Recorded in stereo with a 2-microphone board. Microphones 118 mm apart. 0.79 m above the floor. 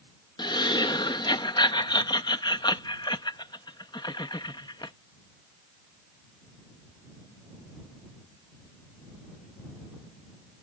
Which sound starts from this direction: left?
Laughter, at 0.4 s.